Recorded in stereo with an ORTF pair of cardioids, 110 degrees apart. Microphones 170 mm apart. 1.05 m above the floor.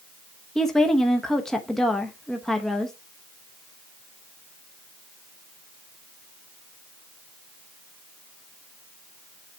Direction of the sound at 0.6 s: 5° left.